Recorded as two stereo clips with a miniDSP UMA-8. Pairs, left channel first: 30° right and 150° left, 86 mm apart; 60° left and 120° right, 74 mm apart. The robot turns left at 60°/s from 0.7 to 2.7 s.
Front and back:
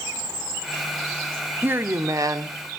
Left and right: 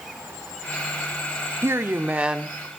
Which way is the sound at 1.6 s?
150° right.